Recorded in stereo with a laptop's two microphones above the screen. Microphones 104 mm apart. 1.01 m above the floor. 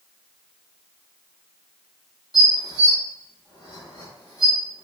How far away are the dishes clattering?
About 0.8 m.